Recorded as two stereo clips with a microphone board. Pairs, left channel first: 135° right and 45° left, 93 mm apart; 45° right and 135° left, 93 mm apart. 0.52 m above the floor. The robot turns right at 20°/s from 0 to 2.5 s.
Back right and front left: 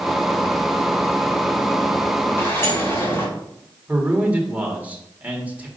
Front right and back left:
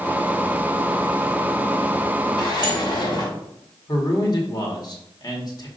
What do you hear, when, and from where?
2.4 s a sliding door: 75° right, 2.5 m; by 3.3 s 70° right, 2.5 m
3.9 s a man speaking: 25° right, 1.7 m